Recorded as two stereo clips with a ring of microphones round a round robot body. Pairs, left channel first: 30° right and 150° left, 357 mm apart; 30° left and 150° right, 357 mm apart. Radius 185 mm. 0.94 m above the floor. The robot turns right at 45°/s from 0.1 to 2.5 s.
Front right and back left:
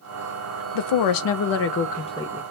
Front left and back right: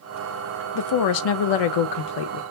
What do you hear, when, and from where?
0.8 s a woman speaking: 15° right, 0.6 m; by 2.4 s 60° left, 0.6 m